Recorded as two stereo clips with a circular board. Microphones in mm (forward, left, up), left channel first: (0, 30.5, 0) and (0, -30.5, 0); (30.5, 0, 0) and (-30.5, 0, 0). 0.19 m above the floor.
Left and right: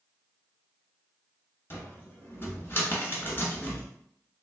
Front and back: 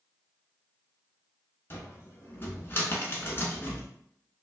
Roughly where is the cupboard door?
Ahead left.